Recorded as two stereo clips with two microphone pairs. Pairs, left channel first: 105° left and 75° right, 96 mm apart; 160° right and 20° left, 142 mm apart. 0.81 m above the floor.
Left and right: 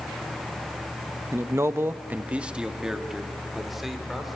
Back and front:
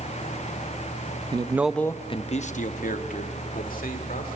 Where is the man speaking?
25° right, 0.6 m; by 4.4 s 160° right, 2.5 m.